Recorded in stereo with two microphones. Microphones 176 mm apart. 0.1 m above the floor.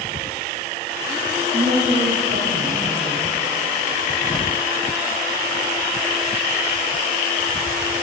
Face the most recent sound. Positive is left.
turn(degrees=-55)  # may be behind; listen again after turning